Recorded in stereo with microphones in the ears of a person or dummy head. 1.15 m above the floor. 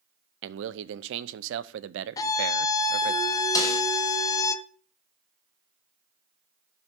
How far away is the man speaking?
About 0.6 m.